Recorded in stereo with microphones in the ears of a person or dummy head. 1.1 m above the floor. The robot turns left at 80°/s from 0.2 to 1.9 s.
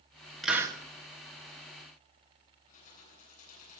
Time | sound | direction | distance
0.4 | a hiss | centre (ahead or behind) | 1.5 m
2.7 | keys jangling | 45° left (ahead or behind) | 9.5 m